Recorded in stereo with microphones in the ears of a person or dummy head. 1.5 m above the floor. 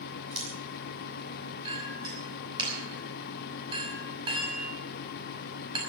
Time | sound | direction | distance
0.3 | scissors | 40° right (ahead or behind) | 7 m
1.6 | a clink | 35° right (ahead or behind) | 6 m